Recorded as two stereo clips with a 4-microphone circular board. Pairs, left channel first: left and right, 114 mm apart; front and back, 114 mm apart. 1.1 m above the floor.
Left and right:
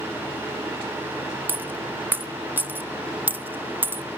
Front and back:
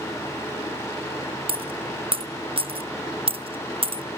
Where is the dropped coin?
160° right, 0.7 m.